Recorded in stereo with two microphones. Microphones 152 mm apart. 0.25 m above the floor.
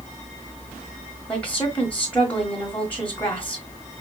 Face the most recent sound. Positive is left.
turn(degrees=10)  # may be behind; listen again after turning